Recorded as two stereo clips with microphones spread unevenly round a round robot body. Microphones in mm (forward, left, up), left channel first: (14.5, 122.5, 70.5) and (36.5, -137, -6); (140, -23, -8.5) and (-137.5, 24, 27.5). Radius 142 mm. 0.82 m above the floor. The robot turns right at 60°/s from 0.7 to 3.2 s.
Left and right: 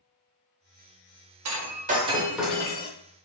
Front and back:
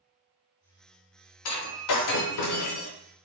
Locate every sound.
1.4 s breaking glass: 45° right, 0.7 m; by 2.9 s 45° left, 0.7 m